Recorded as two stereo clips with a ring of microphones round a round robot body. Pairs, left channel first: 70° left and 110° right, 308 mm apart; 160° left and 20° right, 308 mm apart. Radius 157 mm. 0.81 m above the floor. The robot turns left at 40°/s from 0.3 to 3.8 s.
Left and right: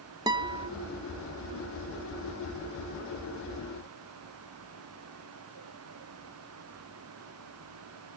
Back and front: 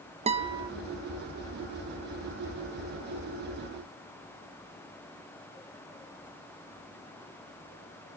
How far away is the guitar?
About 0.9 m.